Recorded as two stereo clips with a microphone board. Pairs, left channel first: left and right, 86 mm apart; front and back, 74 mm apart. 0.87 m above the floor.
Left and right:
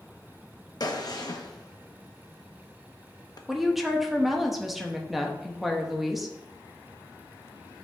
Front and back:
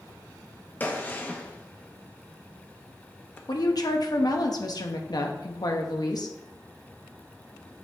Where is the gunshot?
60° left, 0.8 m.